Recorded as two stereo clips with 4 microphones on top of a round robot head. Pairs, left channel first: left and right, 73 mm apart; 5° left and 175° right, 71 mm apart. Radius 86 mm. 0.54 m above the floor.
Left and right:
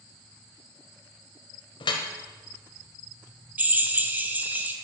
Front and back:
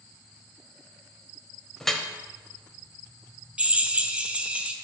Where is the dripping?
90° left, 0.9 m.